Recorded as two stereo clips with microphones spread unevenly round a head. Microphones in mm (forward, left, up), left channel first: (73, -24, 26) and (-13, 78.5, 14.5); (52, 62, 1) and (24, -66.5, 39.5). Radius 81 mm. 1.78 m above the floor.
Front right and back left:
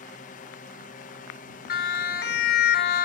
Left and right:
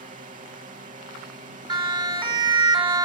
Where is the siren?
50° right.